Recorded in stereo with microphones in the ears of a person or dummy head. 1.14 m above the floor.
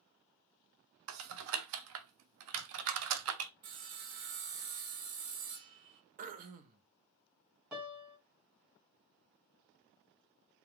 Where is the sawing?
50° right (ahead or behind), 0.5 m.